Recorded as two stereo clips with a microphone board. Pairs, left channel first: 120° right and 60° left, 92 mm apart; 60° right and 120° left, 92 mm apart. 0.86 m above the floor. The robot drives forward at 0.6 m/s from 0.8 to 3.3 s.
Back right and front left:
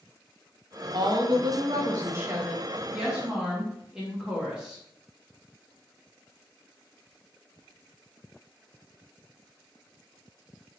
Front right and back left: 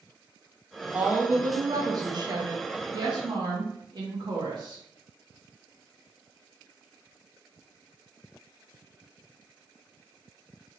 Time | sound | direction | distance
0.9 | a woman speaking | 55° left | 1.0 m